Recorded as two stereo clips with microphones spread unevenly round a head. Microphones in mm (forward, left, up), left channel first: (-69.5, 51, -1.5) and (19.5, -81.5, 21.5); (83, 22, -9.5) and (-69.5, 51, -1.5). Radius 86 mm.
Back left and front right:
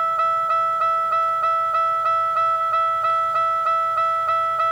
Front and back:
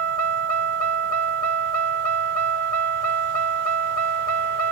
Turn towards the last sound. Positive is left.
turn(degrees=-140)